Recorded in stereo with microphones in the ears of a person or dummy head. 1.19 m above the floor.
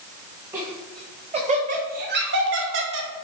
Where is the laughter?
20° right (ahead or behind), 1.5 m; by 3.1 s 65° right (ahead or behind), 1.3 m.